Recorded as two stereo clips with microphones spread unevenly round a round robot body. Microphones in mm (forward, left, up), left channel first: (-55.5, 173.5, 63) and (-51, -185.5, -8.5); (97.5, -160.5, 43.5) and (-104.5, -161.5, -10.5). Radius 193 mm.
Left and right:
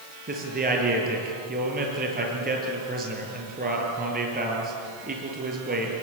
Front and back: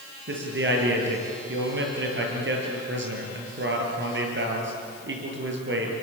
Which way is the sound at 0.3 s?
155° right.